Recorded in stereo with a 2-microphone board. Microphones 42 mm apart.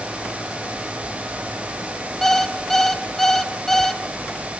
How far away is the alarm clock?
About 1.5 m.